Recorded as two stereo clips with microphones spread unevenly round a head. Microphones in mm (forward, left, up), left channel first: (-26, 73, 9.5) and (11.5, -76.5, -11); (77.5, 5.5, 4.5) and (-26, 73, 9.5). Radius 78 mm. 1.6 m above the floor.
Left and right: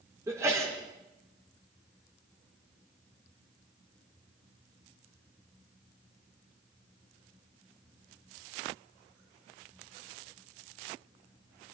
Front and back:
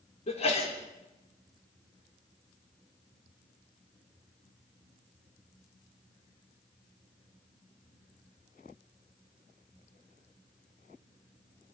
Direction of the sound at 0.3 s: Straight ahead.